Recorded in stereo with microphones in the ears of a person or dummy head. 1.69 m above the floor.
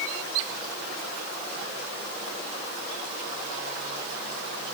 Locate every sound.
Only background noise.